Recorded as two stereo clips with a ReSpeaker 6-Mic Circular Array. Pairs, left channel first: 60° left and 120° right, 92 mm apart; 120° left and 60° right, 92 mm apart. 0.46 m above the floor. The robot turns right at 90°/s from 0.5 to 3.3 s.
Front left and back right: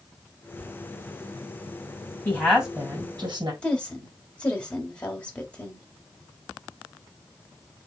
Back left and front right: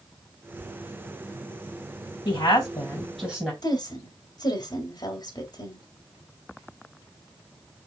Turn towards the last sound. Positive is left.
turn(degrees=135)